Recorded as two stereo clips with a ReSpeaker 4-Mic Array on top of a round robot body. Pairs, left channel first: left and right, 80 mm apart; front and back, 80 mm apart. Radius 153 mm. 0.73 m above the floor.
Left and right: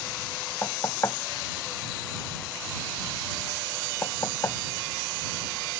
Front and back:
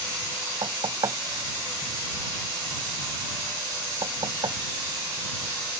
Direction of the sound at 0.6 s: 145° left.